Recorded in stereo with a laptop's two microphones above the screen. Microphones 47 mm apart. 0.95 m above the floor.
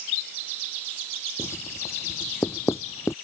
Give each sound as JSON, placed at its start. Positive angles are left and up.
{"t": 1.4, "sound": "writing", "side_deg": 70}